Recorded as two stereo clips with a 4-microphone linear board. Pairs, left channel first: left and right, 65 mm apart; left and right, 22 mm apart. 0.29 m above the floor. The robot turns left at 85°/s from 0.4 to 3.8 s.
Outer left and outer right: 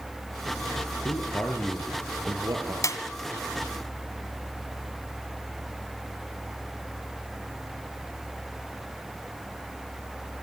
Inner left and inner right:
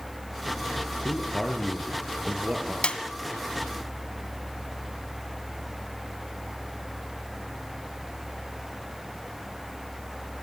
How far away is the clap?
About 2 m.